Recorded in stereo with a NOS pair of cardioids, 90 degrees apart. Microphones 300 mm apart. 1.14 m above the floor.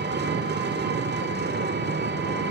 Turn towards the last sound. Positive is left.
turn(degrees=-35)